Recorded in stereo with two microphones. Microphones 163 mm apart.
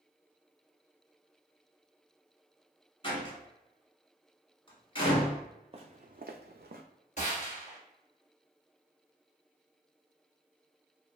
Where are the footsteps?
35° right (ahead or behind), 0.7 m; by 6.8 s 65° right (ahead or behind), 0.5 m.